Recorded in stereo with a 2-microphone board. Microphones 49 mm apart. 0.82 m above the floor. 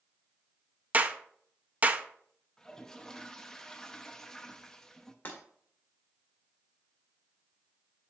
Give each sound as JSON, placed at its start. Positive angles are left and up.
{"t": 0.9, "sound": "a clap", "side_deg": -35, "distance_m": 0.5}
{"t": 2.6, "sound": "a toilet flushing", "side_deg": 10, "distance_m": 0.5}
{"t": 5.2, "sound": "breaking glass", "side_deg": 40, "distance_m": 1.8}